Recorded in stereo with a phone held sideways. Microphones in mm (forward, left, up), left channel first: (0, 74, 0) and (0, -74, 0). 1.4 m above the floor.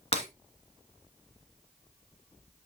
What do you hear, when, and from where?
0.1 s breaking glass: 40° left (ahead or behind), 2 m